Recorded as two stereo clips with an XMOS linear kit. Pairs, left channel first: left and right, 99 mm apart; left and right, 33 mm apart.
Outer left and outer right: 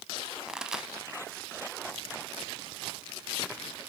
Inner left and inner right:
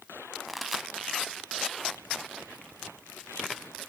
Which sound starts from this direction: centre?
A pop, at 0.5 s.